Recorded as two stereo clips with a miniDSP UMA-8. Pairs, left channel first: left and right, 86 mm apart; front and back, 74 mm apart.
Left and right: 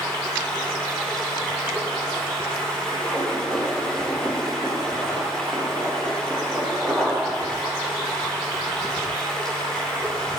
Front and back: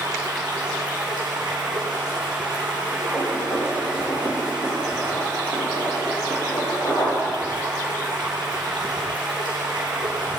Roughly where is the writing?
Ahead.